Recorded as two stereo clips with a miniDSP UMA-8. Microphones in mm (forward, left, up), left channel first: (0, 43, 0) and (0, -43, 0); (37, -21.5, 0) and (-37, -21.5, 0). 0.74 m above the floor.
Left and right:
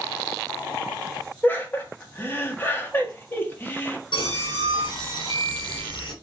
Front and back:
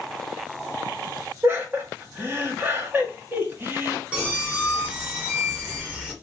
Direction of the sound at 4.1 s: 110° left.